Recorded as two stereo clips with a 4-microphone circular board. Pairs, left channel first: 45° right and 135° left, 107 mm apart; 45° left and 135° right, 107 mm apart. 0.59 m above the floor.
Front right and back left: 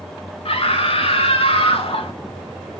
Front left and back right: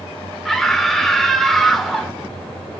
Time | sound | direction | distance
0.5 | a scream | 40° right | 1.8 m